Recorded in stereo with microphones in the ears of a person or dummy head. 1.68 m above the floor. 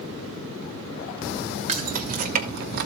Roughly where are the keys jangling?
Right.